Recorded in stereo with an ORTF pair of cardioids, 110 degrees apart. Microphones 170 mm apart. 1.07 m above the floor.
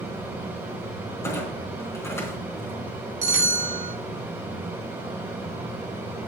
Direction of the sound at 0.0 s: 10° right.